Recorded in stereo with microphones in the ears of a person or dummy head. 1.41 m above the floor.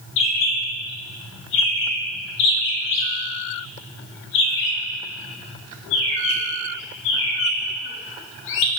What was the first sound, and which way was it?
A bird, 55° left (ahead or behind).